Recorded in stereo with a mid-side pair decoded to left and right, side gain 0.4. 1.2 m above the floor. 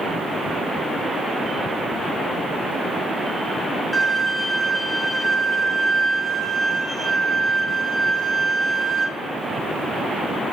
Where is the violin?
15° left, 0.7 m.